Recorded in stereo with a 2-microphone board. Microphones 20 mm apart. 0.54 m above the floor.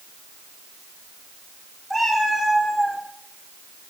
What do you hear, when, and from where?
1.9 s a cat meowing: centre (ahead or behind), 5.5 m; by 3.0 s 15° left (ahead or behind), 5 m